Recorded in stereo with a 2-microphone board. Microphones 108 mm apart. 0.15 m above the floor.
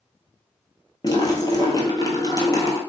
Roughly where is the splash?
Left.